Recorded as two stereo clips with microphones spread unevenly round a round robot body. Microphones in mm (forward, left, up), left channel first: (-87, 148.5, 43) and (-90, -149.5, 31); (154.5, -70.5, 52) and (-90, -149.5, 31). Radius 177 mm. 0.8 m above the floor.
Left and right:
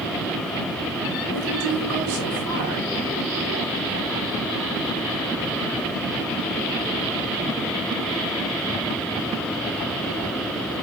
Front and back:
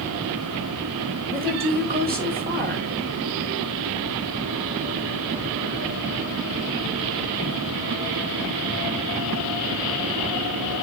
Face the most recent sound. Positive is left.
turn(degrees=-110)